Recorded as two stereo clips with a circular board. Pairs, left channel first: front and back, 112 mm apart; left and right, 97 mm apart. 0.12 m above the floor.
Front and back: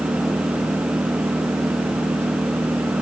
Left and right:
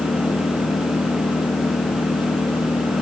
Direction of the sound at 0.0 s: 115° left.